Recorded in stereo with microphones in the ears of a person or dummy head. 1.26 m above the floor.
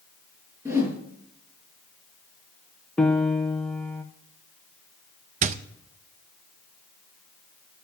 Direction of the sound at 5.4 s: 40° right (ahead or behind).